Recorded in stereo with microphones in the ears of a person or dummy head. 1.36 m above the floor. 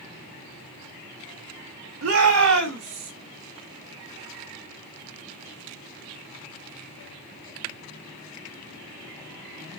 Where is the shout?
65° right (ahead or behind), 4 m; by 3.1 s 55° right (ahead or behind), 5 m.